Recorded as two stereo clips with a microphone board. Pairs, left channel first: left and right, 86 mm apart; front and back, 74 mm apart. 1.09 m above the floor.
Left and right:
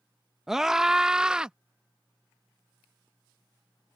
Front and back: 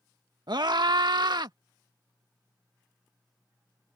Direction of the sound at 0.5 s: 175° right.